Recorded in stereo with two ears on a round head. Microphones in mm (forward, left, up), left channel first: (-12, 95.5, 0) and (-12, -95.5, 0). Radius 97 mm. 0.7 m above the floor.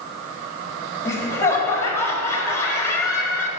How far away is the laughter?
About 1.6 m.